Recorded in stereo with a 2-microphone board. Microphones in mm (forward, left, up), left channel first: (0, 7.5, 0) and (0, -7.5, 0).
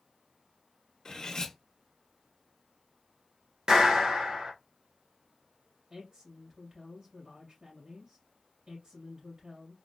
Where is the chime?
I don't hear a chime.